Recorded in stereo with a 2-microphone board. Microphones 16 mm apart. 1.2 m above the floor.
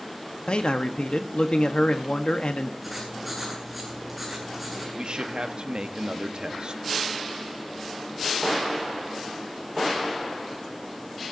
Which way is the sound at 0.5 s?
85° left.